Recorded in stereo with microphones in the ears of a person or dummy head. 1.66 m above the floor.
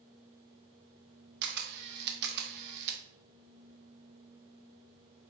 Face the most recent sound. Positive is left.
turn(degrees=-55)  # may be behind; listen again after turning